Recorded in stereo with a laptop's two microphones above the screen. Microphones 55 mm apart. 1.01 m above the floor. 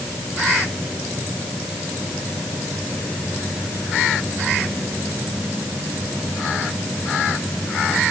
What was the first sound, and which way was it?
Only background noise.